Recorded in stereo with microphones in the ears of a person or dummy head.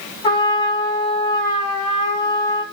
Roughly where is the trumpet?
Left.